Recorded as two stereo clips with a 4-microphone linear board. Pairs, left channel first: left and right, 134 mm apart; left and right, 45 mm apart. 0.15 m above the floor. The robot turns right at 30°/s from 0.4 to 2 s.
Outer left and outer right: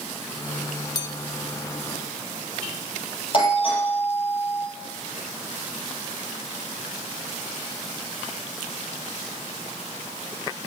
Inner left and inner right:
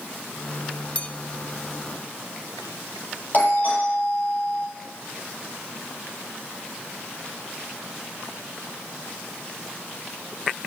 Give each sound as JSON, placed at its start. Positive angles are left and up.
{"t": 0.9, "sound": "a bell", "side_deg": 30, "distance_m": 0.7}
{"t": 3.3, "sound": "a doorbell", "side_deg": 40, "distance_m": 6.0}